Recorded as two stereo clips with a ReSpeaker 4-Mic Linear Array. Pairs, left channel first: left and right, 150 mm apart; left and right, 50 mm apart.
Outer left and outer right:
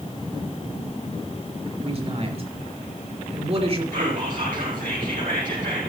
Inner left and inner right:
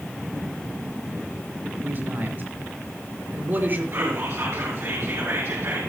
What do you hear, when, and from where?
1.8 s a man speaking: 40° right (ahead or behind), 4 m
3.9 s whispering: 65° right (ahead or behind), 3 m